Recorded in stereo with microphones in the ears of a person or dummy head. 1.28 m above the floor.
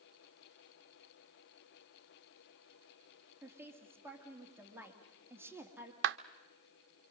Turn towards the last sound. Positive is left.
turn(degrees=-65)  # may be behind; listen again after turning